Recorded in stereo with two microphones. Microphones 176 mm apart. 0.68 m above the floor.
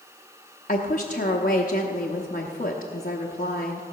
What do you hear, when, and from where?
0.7 s a woman speaking: 50° left (ahead or behind), 0.8 m